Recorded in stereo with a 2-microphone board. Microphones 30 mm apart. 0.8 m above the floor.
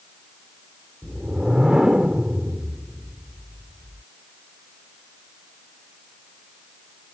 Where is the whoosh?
30° right (ahead or behind).